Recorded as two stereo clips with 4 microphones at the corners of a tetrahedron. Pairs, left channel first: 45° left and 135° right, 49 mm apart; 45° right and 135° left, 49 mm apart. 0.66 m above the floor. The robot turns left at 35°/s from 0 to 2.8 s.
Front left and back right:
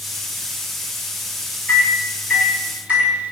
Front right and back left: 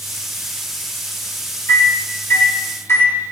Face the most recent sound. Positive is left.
turn(degrees=-70)